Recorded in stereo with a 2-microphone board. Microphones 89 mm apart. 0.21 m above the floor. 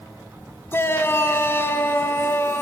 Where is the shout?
25° left (ahead or behind), 1.6 m.